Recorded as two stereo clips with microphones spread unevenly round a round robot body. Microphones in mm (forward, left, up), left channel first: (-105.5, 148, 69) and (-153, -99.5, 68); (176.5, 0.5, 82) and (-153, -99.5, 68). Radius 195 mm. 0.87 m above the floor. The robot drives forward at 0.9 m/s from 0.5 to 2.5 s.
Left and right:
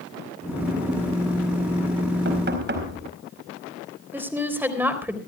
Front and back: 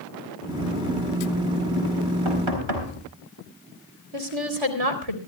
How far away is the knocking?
About 4.5 m.